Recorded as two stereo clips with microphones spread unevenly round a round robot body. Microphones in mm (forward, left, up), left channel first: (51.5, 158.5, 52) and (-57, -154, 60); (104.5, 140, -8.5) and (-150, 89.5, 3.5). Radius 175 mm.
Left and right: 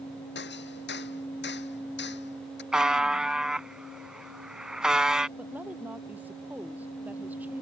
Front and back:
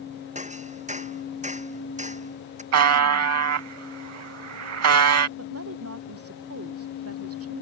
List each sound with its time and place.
0.3 s hammering: 130° left
2.7 s a buzzer: 165° left
5.4 s a woman speaking: 165° left